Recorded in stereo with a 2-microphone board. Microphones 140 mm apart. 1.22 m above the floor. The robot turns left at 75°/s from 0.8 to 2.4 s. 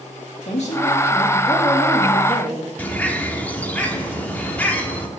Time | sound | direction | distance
0.5 | a woman speaking | 60° left | 2.5 m
2.8 | a bird | 10° left (ahead or behind) | 1.1 m